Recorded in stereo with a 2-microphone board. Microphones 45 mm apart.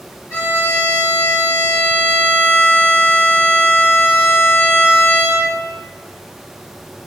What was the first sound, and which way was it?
A violin, 55° left (ahead or behind).